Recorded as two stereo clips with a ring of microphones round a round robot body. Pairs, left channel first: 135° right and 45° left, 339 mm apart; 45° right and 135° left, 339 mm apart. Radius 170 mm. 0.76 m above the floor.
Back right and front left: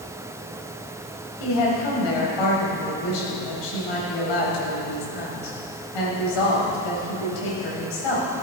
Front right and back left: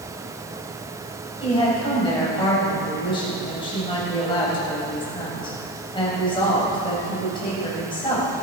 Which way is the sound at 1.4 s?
120° right.